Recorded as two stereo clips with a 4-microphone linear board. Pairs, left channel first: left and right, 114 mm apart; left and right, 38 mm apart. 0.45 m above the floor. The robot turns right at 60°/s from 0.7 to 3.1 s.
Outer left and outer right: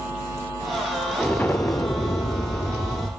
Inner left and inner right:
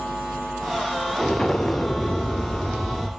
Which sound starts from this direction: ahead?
An explosion, at 1.2 s.